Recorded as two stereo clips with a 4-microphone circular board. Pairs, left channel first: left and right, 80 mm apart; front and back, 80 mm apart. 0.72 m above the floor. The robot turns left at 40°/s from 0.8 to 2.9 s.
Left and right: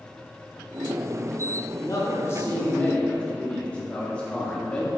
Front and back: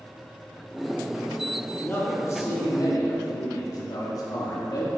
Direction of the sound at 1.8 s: 65° left.